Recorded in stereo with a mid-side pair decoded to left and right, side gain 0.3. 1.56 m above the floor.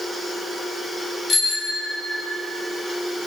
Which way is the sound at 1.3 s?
60° left.